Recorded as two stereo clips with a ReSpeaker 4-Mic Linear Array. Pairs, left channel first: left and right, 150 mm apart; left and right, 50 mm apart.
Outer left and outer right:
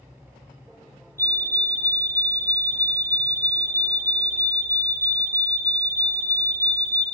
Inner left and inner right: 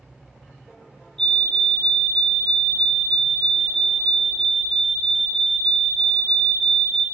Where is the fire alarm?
15° left (ahead or behind), 4.5 m.